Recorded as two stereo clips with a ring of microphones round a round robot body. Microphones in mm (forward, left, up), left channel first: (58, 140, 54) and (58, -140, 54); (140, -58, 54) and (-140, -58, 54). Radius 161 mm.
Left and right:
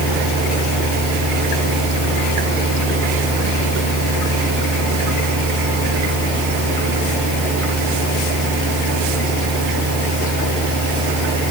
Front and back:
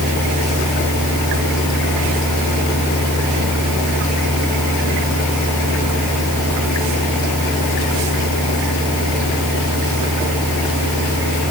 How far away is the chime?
No chime in this recording.